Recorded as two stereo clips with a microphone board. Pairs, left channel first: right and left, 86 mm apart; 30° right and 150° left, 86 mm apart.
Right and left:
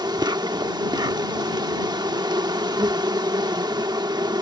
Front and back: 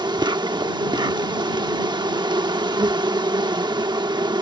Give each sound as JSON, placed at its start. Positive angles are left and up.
{"t": 0.0, "sound": "an insect", "azimuth_deg": 125}